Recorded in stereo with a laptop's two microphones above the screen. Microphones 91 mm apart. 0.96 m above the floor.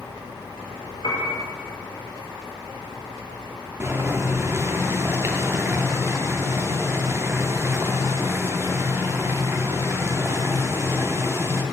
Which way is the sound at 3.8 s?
30° right (ahead or behind).